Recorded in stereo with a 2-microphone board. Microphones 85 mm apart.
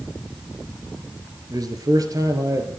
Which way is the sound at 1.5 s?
45° right (ahead or behind).